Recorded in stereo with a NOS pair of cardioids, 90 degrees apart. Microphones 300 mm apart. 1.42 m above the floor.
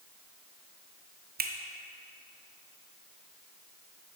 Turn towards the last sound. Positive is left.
turn(degrees=-35)